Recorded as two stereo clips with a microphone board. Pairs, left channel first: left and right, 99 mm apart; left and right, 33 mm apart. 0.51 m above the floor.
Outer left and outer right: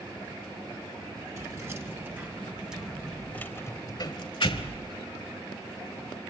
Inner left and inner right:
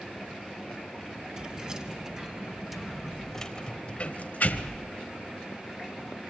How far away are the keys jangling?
About 3 m.